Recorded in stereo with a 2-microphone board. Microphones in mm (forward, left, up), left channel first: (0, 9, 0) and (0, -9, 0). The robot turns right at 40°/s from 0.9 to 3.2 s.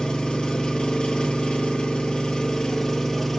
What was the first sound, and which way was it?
An engine running, 65° left.